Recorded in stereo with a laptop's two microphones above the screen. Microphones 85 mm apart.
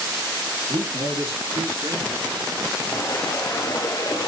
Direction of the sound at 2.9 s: 40° left (ahead or behind).